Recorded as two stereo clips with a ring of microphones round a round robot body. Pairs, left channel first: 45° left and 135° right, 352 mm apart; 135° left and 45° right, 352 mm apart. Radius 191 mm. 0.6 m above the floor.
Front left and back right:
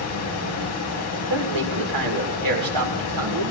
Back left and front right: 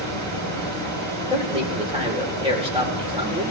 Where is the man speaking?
120° right, 2.5 m.